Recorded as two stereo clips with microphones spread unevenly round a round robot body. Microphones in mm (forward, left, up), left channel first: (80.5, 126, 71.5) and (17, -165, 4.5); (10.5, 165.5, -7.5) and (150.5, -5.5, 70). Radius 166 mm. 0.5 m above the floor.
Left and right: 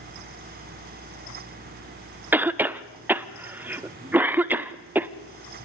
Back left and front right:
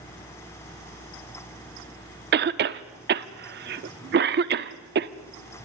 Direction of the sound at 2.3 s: 60° right.